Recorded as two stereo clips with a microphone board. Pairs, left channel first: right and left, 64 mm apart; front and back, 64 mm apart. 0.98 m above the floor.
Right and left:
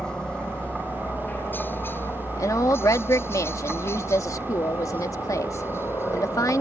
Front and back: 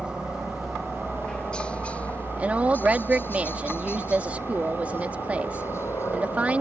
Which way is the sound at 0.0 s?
140° right.